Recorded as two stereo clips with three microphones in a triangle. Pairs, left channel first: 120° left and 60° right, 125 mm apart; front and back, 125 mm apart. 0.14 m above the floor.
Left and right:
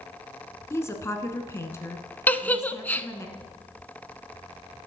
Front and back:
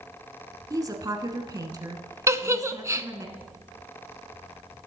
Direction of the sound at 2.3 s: 175° left.